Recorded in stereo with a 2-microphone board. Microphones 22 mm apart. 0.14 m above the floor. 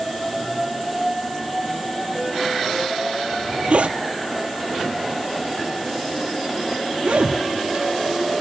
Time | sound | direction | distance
3.3 | a zipper | 60° right (ahead or behind) | 0.6 m